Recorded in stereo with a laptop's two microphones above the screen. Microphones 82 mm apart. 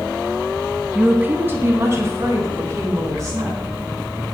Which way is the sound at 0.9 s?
10° right (ahead or behind).